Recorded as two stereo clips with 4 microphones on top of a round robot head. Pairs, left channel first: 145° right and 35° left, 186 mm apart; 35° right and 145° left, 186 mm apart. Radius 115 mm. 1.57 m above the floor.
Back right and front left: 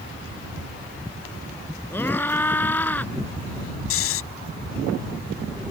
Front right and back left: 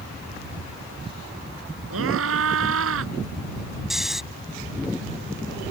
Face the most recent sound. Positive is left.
turn(degrees=-130)